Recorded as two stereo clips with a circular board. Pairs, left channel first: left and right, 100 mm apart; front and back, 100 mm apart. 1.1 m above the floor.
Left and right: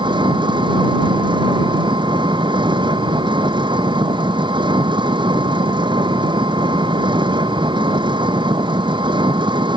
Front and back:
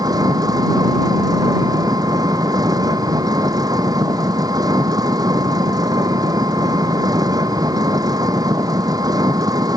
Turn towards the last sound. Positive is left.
turn(degrees=-130)